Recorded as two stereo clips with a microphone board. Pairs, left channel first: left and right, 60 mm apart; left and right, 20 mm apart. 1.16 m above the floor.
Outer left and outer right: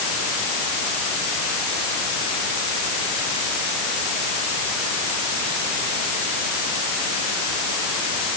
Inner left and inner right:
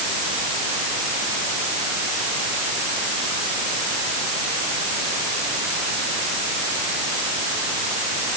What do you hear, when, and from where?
Only background noise.